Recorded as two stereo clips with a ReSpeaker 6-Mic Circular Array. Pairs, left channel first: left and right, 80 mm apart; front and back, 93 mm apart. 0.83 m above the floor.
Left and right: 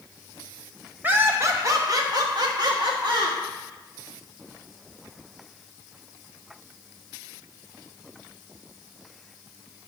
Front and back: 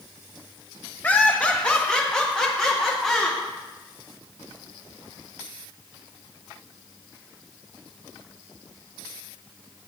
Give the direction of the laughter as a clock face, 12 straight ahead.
2 o'clock.